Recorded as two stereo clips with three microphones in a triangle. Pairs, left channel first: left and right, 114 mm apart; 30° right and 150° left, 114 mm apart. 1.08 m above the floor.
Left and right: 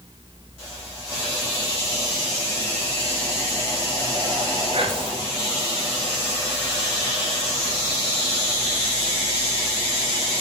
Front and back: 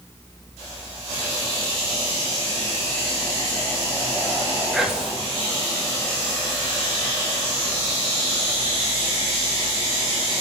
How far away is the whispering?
About 0.8 m.